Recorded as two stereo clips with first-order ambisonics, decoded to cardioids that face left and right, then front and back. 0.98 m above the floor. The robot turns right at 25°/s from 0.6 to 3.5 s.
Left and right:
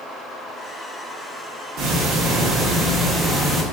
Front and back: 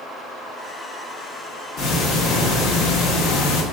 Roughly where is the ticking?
Ahead right.